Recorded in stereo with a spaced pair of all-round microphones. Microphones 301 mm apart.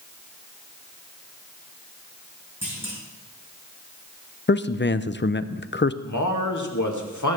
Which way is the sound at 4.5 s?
35° left (ahead or behind).